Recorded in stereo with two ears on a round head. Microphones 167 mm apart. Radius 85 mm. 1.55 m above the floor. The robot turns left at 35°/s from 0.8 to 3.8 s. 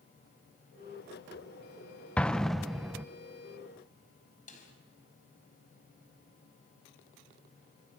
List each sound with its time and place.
2.2 s an explosion: 5° left (ahead or behind), 0.5 m; by 3.0 s 5° right (ahead or behind), 0.5 m
4.5 s a snare drum: 40° left (ahead or behind), 5 m